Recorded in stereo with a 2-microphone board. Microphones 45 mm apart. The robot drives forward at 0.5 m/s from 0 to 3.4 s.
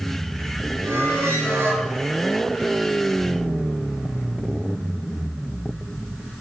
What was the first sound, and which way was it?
A squeak, 75° right (ahead or behind).